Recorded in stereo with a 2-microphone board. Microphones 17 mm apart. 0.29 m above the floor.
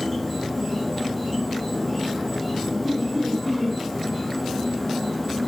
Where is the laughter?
5° right (ahead or behind), 1.5 m.